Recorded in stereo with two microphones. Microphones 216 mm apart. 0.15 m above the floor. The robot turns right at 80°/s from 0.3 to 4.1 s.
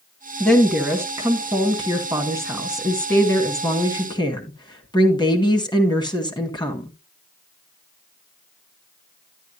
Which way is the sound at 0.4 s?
5° left (ahead or behind).